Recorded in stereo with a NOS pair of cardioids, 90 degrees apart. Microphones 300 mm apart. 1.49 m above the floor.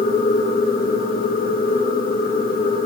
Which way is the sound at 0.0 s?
30° left.